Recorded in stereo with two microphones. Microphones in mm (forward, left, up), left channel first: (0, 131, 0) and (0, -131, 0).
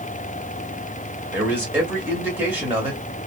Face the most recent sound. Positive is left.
turn(degrees=-5)  # may be behind; listen again after turning